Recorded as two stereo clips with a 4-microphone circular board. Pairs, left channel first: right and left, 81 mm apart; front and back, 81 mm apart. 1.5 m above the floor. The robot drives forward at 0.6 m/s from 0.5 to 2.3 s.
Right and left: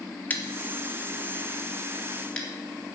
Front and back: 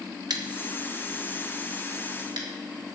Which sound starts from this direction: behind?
Scissors, at 0.3 s.